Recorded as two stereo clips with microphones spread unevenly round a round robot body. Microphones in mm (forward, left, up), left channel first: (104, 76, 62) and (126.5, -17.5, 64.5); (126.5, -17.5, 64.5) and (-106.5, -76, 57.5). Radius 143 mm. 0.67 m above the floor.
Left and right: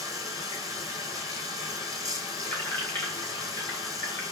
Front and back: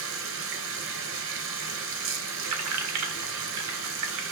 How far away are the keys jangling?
About 1.3 m.